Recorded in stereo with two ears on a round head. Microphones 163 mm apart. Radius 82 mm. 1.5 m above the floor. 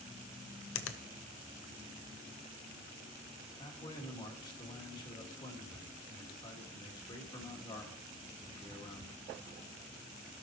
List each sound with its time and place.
0.8 s a finger snap: 80° left, 0.7 m
3.6 s a man speaking: 25° left (ahead or behind), 2.5 m